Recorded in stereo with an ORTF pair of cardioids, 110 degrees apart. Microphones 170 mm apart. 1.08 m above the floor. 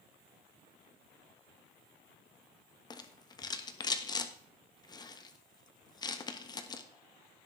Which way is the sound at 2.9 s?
25° left.